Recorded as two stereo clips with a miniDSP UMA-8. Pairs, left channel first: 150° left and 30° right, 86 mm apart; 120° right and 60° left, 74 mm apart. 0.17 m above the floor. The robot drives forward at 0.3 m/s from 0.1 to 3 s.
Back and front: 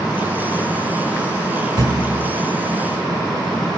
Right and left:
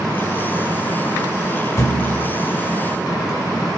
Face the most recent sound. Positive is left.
turn(degrees=-85)